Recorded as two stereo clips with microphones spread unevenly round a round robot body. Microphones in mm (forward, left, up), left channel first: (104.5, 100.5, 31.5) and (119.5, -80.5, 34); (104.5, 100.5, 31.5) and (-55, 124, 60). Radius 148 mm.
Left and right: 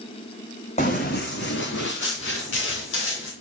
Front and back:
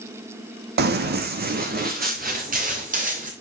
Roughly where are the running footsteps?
Behind.